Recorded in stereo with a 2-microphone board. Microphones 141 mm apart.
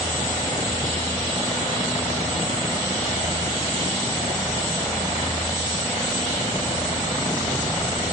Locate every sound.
Only background noise.